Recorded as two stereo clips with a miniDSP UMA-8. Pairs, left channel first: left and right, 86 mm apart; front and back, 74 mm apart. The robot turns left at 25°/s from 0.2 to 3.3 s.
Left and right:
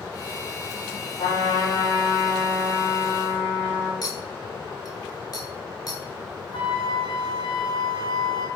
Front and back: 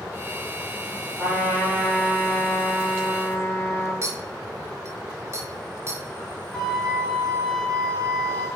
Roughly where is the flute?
Left.